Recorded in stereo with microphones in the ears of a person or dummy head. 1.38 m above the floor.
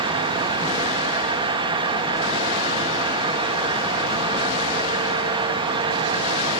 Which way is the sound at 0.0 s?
25° right (ahead or behind).